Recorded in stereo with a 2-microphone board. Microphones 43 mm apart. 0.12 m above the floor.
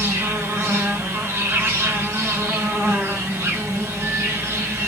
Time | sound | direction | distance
0.0 | an insect | 75° right (ahead or behind) | 1.2 m